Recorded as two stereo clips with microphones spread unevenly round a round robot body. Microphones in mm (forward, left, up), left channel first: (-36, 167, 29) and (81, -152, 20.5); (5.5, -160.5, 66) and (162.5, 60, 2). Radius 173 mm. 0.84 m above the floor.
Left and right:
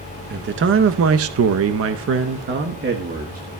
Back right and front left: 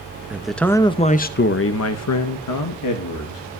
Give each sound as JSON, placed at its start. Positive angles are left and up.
{"t": 0.3, "sound": "a man speaking", "azimuth_deg": -20, "distance_m": 1.0}